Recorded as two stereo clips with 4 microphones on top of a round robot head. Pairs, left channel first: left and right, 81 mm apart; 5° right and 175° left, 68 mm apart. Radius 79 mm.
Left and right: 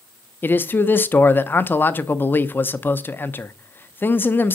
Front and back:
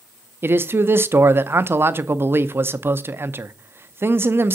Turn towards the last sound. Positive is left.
turn(degrees=140)